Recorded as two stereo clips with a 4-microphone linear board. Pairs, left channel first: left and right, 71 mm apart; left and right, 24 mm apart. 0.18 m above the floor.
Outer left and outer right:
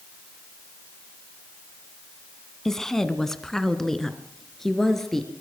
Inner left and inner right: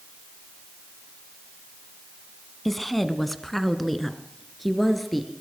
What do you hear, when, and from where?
2.6 s a woman speaking: 5° left (ahead or behind), 1.6 m